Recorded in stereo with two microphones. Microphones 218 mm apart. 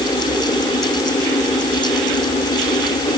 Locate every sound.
Only background noise.